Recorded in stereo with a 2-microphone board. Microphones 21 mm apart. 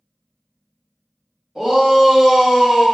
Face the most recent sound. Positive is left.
turn(degrees=-10)  # may be behind; listen again after turning